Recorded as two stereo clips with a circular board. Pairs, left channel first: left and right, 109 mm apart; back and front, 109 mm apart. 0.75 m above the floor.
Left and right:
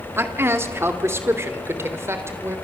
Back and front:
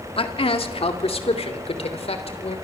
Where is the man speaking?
155° right, 2.0 m.